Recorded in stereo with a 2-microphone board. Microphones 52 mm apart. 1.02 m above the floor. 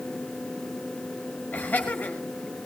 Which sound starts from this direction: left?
Laughter, at 1.5 s.